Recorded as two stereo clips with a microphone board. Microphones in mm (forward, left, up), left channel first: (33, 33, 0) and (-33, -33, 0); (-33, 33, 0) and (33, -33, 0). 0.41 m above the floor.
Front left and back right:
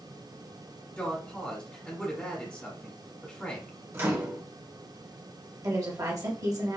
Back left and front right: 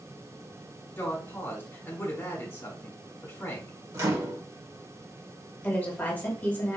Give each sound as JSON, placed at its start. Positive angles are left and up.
{"t": 1.0, "sound": "a woman speaking", "azimuth_deg": 110, "distance_m": 1.3}
{"t": 3.9, "sound": "a microwave", "azimuth_deg": -85, "distance_m": 0.9}
{"t": 5.6, "sound": "a woman speaking", "azimuth_deg": -160, "distance_m": 1.2}